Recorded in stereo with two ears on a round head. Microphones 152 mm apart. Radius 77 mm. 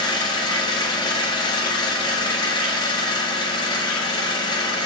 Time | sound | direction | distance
0.0 | an engine running | 25° left (ahead or behind) | 0.8 m